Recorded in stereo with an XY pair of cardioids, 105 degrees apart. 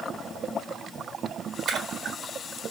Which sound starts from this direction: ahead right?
A splash, at 1.7 s.